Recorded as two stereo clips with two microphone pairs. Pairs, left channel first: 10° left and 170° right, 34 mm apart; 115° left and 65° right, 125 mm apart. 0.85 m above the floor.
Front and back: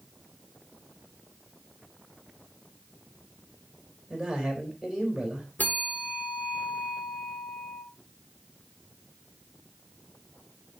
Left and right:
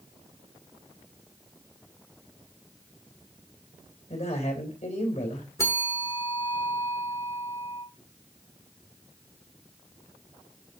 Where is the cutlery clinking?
I don't hear cutlery clinking.